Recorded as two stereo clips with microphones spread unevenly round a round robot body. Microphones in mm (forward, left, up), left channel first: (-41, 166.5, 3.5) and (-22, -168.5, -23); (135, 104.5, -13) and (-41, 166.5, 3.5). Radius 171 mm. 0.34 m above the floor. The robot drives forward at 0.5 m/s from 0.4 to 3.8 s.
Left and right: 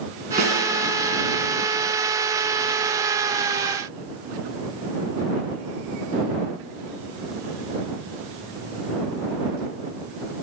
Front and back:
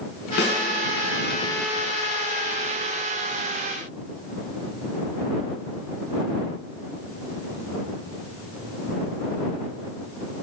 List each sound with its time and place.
0.4 s a snare drum: 15° right, 3.5 m